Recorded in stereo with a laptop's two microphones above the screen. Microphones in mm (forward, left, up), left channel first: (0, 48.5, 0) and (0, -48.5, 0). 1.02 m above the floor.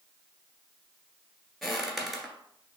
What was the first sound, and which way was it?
Footsteps, centre (ahead or behind).